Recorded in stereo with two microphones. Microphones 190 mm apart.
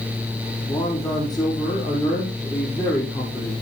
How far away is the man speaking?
About 5 m.